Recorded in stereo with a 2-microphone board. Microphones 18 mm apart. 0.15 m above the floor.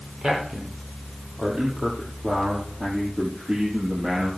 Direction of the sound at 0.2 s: 60° right (ahead or behind).